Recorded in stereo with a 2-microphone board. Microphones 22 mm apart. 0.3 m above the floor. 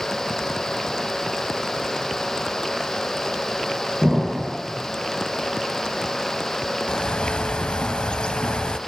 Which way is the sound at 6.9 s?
55° left (ahead or behind).